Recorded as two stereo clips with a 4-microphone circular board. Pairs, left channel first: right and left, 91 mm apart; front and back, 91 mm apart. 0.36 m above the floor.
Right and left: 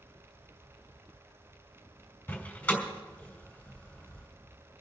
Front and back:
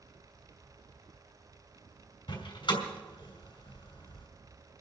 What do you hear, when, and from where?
2.3 s a door slam: 20° right, 2.5 m